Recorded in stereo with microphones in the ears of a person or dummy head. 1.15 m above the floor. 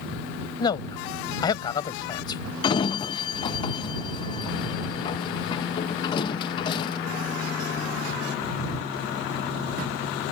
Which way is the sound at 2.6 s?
35° left (ahead or behind).